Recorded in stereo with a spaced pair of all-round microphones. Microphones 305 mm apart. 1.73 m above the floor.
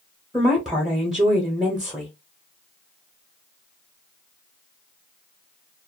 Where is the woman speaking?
Centre (ahead or behind), 0.7 m.